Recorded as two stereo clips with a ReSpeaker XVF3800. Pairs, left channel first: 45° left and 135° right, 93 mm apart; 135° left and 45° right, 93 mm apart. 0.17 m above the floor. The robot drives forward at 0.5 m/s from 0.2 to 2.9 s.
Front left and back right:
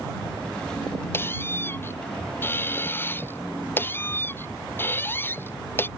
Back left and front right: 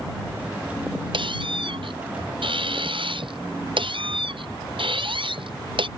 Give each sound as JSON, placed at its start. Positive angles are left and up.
{"t": 1.1, "sound": "a squeak", "azimuth_deg": -20}